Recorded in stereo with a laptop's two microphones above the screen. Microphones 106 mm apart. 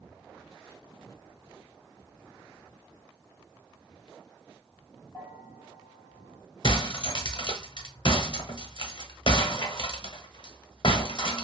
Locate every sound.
5.1 s a bell: 20° left (ahead or behind), 1.6 m
6.6 s breaking glass: 50° left (ahead or behind), 0.8 m